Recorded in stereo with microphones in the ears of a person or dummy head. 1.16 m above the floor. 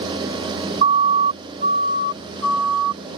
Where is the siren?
35° right (ahead or behind); by 3.0 s 55° right (ahead or behind).